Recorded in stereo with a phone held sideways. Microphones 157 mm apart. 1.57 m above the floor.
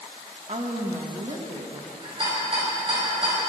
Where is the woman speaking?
45° right (ahead or behind), 2 m.